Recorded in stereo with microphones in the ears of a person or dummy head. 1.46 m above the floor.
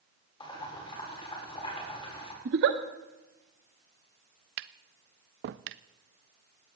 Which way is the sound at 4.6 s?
55° right (ahead or behind).